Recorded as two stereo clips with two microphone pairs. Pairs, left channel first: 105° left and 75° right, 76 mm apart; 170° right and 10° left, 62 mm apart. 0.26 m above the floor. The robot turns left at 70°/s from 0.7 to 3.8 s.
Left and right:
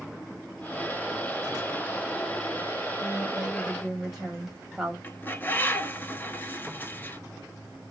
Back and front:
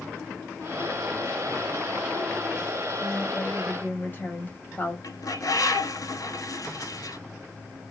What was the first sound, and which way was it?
A woman speaking, 105° right.